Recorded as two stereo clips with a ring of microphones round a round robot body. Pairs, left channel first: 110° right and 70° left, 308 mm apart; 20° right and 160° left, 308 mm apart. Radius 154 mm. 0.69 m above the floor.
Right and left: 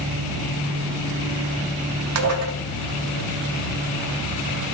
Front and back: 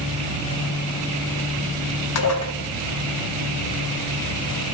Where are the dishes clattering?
20° left, 0.6 m.